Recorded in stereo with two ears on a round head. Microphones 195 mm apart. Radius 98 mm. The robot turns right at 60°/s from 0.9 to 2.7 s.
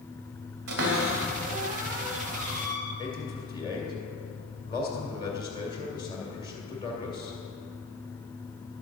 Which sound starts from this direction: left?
A man speaking, at 3.0 s.